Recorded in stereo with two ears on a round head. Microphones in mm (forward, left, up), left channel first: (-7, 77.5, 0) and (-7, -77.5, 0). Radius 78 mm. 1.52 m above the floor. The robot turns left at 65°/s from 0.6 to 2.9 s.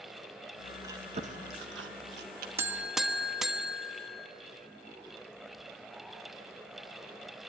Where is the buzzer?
15° right (ahead or behind), 1.0 m; by 4.3 s 5° right (ahead or behind), 1.0 m.